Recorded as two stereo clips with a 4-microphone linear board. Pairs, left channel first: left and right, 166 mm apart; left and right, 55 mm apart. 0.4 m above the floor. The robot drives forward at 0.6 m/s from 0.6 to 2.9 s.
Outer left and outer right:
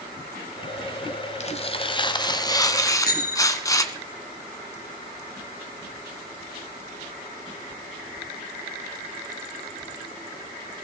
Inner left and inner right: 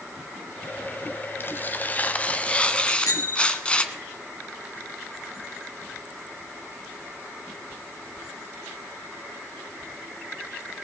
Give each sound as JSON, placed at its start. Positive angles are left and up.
{"t": 1.4, "sound": "tearing paper", "side_deg": 40, "distance_m": 0.8}
{"t": 2.8, "sound": "a bicycle bell", "side_deg": 65, "distance_m": 2.5}